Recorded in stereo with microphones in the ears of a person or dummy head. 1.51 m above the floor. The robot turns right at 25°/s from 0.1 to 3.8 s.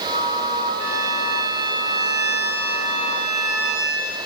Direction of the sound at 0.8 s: 100° right.